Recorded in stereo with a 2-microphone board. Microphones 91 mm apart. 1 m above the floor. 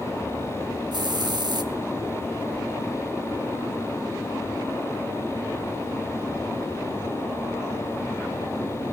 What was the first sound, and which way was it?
A hiss, 55° right (ahead or behind).